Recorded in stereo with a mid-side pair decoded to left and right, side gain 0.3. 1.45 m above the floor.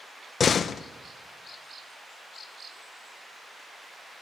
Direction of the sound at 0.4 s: 65° left.